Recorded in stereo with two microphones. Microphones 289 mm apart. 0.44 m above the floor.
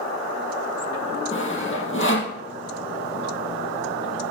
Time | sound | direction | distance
1.3 | sawing | 45° left (ahead or behind) | 2 m